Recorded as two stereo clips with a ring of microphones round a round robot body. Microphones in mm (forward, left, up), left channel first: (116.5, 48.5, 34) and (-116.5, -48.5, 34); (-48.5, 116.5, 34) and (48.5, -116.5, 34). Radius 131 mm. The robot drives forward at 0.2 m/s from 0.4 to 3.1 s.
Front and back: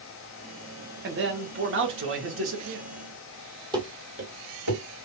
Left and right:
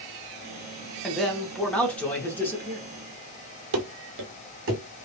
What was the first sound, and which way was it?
A man speaking, 160° right.